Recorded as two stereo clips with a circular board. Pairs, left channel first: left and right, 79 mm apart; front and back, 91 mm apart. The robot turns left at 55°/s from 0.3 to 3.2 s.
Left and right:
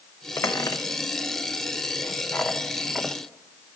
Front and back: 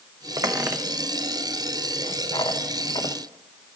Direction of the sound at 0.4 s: 140° left.